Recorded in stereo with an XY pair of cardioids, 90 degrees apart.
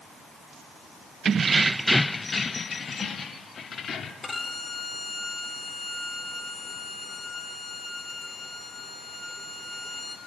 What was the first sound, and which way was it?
Keys jangling, 55° right.